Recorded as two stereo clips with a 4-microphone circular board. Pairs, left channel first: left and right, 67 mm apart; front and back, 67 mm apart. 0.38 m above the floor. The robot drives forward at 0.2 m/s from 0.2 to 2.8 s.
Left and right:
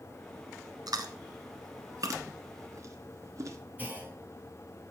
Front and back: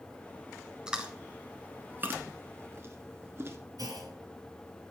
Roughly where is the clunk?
Behind right.